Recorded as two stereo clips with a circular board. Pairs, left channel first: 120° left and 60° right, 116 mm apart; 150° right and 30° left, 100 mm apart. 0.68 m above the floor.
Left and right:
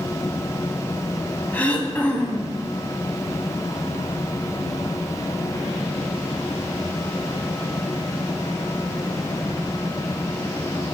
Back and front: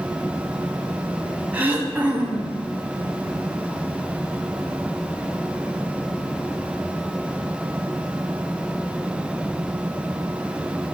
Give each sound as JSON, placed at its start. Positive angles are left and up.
{"t": 1.5, "sound": "throat clearing", "azimuth_deg": 70, "distance_m": 1.1}